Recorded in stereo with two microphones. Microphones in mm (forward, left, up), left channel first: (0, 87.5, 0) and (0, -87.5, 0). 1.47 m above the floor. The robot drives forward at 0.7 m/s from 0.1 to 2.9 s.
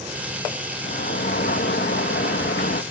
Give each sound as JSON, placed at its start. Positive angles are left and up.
{"t": 0.8, "sound": "a sliding door", "side_deg": 60}